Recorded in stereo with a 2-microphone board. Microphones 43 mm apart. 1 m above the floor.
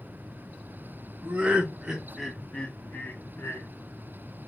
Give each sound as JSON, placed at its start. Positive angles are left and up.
{"t": 1.2, "sound": "laughter", "side_deg": -25, "distance_m": 1.1}